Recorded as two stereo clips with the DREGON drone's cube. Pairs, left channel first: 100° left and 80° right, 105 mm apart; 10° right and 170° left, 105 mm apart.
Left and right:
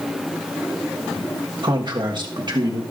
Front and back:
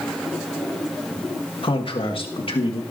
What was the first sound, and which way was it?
A man speaking, 40° right.